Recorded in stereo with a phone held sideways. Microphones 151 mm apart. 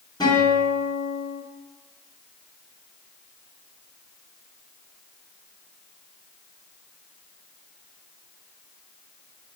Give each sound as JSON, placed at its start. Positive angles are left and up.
{"t": 0.2, "sound": "a guitar", "side_deg": 25, "distance_m": 1.2}